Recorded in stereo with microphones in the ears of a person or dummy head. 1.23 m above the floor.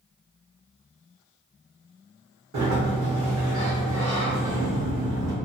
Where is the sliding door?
60° right (ahead or behind), 1.3 m.